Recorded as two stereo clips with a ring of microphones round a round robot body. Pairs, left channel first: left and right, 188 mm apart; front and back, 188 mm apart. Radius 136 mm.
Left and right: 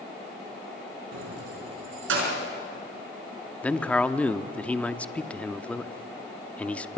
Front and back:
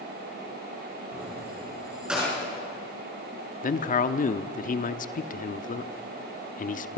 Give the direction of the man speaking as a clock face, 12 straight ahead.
12 o'clock.